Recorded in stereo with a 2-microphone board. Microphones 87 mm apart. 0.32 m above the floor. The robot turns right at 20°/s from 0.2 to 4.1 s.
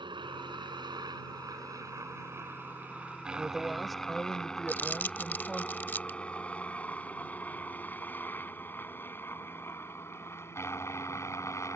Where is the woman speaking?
5° right (ahead or behind); by 5.7 s 5° left (ahead or behind).